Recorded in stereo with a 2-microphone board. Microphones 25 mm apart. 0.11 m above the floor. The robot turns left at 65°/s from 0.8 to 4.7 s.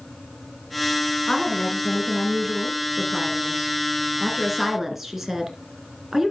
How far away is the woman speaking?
About 1.5 m.